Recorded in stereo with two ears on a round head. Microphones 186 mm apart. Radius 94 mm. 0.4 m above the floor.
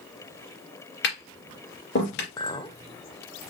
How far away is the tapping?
About 2.5 m.